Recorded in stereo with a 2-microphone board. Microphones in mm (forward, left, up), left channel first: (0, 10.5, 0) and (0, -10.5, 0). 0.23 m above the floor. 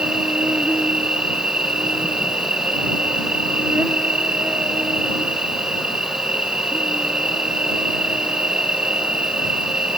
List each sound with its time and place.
0.0 s an insect: 65° right (ahead or behind)